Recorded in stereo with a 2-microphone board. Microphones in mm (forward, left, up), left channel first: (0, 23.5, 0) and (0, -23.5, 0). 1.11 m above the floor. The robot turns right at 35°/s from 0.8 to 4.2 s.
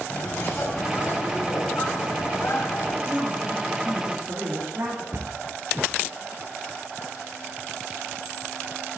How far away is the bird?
About 1.6 m.